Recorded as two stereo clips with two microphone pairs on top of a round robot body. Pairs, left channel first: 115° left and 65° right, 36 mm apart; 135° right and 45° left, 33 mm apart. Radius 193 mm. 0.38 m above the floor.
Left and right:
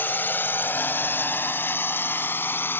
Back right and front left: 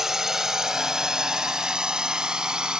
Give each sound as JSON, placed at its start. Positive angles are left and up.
{"t": 0.0, "sound": "a drone", "azimuth_deg": 125}